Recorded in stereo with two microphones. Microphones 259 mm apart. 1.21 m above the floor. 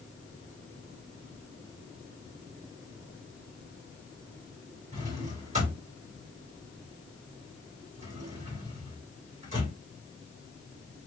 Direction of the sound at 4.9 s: 30° right (ahead or behind).